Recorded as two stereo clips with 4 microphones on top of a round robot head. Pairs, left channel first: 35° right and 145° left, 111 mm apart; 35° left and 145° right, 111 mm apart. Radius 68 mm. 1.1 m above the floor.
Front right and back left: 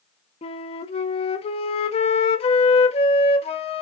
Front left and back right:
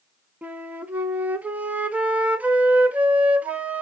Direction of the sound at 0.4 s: 65° right.